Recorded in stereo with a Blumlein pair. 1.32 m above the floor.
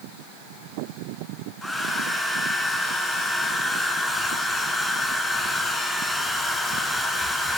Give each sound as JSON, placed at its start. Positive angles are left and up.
{"t": 1.6, "sound": "a hair dryer", "azimuth_deg": 10, "distance_m": 5.0}